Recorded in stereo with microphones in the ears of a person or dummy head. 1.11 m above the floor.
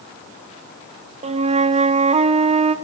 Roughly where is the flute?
Right.